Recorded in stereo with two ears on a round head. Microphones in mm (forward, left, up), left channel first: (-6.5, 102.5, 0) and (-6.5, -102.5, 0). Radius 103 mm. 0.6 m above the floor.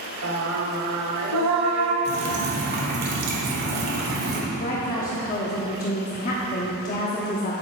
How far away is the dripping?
About 1.6 m.